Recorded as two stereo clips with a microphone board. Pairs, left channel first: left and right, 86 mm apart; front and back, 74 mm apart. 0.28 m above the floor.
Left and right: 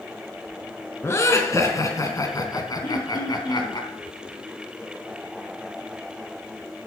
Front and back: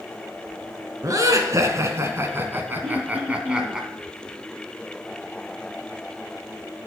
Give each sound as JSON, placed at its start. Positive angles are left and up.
{"t": 1.0, "sound": "laughter", "azimuth_deg": 145, "distance_m": 3.0}
{"t": 2.8, "sound": "throat clearing", "azimuth_deg": 105, "distance_m": 6.5}